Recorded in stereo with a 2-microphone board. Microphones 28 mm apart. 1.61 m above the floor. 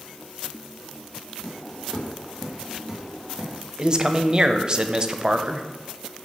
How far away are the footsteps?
About 3 m.